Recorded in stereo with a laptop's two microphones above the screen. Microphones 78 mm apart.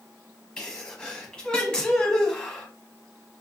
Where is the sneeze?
15° left (ahead or behind), 1.1 m.